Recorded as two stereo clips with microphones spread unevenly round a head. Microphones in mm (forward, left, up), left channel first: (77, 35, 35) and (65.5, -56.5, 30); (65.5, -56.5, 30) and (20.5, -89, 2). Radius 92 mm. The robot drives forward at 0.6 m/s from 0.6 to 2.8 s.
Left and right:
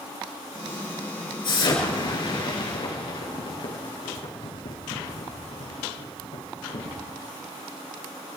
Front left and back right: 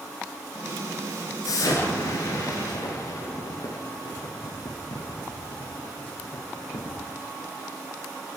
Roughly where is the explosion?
Ahead left.